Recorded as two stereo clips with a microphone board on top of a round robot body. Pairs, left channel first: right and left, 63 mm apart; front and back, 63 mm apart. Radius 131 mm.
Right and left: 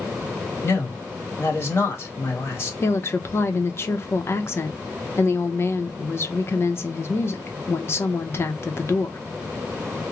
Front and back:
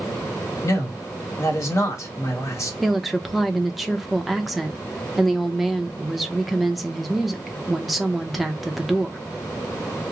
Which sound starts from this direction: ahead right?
A man speaking, at 0.6 s.